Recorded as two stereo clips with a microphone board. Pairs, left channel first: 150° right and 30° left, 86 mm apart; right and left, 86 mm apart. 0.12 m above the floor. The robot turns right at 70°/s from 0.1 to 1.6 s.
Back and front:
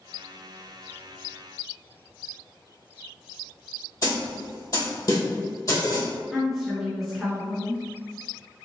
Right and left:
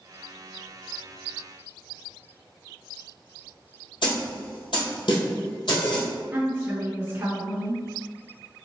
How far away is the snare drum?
About 1.9 m.